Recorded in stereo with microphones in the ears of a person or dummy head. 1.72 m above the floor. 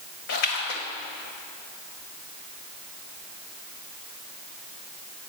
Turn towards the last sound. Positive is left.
turn(degrees=60)  # may be behind; listen again after turning